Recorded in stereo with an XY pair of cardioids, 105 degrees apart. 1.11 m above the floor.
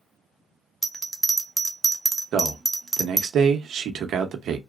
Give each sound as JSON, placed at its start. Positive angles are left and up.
{"t": 0.8, "sound": "a bell", "azimuth_deg": -15, "distance_m": 0.6}
{"t": 2.3, "sound": "a man speaking", "azimuth_deg": -65, "distance_m": 0.9}